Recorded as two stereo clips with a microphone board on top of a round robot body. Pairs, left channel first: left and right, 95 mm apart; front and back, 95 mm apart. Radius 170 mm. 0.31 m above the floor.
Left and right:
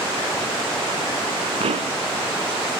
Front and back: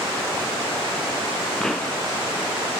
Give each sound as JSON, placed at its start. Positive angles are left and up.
{"t": 1.6, "sound": "a pop", "azimuth_deg": -85}